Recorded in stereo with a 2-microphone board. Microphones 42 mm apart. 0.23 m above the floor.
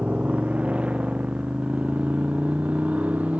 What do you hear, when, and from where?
0.0 s a motorcycle: 25° right (ahead or behind); by 3.4 s 30° right (ahead or behind)